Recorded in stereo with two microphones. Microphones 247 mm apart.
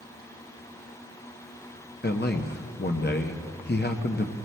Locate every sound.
2.0 s a man speaking: 40° left (ahead or behind), 0.8 m